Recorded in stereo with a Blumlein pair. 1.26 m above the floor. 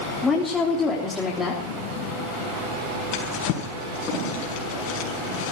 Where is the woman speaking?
15° left, 3.5 m.